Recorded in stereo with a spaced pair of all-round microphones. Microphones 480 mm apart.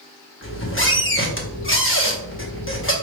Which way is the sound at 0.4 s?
25° left (ahead or behind).